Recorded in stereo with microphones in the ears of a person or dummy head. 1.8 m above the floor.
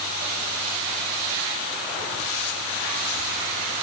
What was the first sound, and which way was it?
Only background noise.